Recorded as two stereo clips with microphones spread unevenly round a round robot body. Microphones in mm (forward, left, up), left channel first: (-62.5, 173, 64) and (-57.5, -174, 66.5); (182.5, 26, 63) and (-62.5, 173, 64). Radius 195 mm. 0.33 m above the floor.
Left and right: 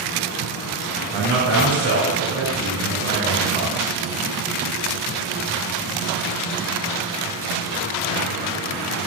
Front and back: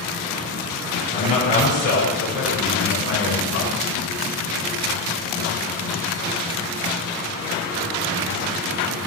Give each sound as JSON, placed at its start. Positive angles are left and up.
{"t": 1.1, "sound": "a man speaking", "azimuth_deg": -45, "distance_m": 3.0}